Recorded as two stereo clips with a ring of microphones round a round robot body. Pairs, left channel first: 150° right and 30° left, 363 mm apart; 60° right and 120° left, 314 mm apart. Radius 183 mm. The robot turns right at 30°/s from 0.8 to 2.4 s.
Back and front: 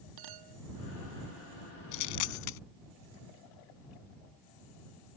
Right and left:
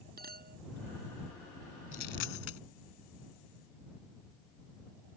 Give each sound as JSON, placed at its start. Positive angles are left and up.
{"t": 0.2, "sound": "a clink", "azimuth_deg": 60}
{"t": 1.9, "sound": "a dropped coin", "azimuth_deg": -130}